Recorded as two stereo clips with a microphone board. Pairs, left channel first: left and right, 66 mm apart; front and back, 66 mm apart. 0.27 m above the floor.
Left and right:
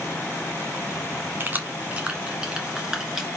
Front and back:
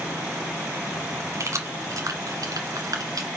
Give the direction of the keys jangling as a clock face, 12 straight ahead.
5 o'clock.